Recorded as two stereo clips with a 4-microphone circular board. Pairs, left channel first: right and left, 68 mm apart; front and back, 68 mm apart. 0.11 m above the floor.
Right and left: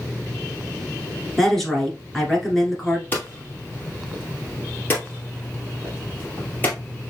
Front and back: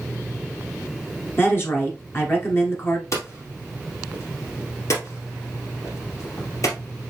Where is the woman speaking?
10° right, 1.3 m.